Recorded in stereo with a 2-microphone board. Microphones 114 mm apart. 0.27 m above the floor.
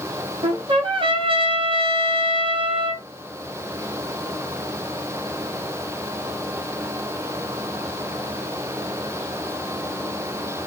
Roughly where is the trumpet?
Right.